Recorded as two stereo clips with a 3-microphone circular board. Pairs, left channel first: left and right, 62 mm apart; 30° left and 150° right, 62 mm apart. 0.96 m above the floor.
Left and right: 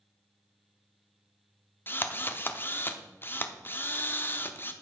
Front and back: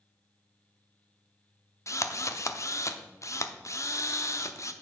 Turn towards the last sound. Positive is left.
turn(degrees=45)